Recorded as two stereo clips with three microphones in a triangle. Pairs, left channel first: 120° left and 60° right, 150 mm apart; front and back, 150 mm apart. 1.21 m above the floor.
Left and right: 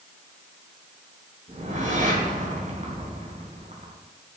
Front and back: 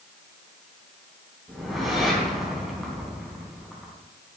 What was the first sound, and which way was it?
A whoosh, 90° right.